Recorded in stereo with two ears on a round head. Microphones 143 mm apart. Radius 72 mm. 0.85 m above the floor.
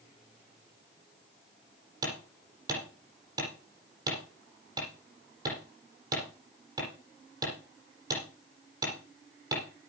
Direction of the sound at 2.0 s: 25° right (ahead or behind).